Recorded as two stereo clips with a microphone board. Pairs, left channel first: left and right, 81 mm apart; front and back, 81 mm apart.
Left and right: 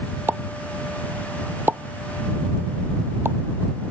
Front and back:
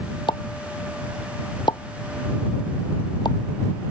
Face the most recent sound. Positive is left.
turn(degrees=-25)